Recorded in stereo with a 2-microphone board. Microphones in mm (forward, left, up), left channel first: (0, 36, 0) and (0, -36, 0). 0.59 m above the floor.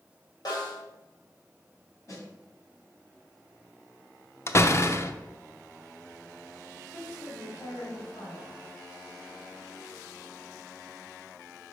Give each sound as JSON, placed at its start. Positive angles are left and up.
{"t": 0.5, "sound": "a snare drum", "side_deg": 65, "distance_m": 2.5}
{"t": 2.1, "sound": "a snare drum", "side_deg": 45, "distance_m": 2.5}
{"t": 4.5, "sound": "a door slam", "side_deg": 40, "distance_m": 0.6}
{"t": 6.9, "sound": "a woman speaking", "side_deg": 75, "distance_m": 2.5}